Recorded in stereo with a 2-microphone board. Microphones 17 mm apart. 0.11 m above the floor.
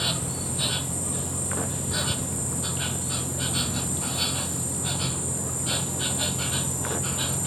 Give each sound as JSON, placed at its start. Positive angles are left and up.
{"t": 0.0, "sound": "an insect", "side_deg": 20}